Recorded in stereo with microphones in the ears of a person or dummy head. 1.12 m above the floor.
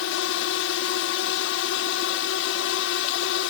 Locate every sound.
0.0 s a drone: 65° left (ahead or behind)